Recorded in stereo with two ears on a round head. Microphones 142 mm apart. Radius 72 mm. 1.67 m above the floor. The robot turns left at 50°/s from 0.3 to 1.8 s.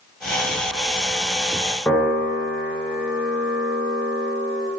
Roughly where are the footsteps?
No footsteps in this recording.